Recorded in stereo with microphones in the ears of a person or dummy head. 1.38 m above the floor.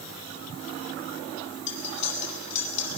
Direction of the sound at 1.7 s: 40° left (ahead or behind).